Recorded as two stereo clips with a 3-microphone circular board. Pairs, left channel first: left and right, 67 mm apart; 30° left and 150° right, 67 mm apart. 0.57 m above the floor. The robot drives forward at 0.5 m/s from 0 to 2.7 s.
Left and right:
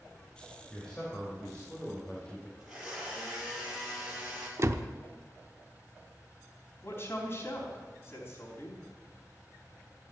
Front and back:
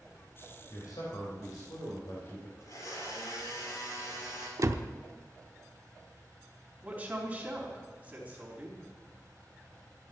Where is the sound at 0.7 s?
15° left, 3 m; by 2.5 s 25° left, 2.5 m.